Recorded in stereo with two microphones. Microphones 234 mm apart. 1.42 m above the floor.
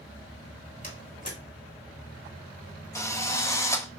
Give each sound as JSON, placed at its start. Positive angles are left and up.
{"t": 0.8, "sound": "a door slam", "side_deg": 30, "distance_m": 3.0}
{"t": 3.0, "sound": "a drill", "side_deg": 10, "distance_m": 1.3}